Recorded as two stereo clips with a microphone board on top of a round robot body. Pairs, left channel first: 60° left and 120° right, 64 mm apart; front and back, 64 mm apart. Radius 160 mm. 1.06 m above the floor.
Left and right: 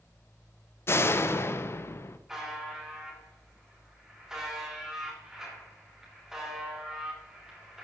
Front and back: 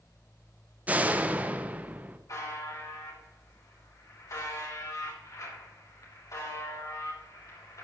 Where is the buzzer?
35° right, 3.5 m.